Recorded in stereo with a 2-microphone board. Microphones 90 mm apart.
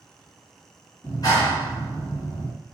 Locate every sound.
1.0 s a clap: 40° left (ahead or behind), 2.5 m